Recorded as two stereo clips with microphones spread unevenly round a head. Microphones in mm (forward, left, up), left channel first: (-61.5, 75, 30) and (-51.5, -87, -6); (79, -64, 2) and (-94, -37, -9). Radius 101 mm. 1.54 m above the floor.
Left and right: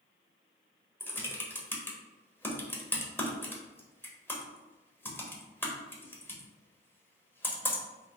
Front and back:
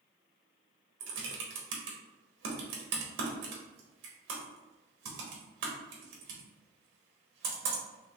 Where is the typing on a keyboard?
175° left, 1.0 m.